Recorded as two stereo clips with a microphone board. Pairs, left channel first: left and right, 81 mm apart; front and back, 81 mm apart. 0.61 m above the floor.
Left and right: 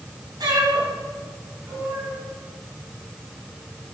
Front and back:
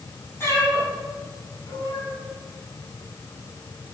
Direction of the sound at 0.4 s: 60° right.